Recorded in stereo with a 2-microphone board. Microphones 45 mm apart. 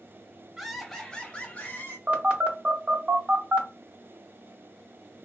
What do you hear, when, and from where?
0.6 s laughter: 5° right (ahead or behind), 0.8 m; by 2.0 s 50° left (ahead or behind), 1.2 m
2.1 s a phone buzzing: 30° right (ahead or behind), 0.9 m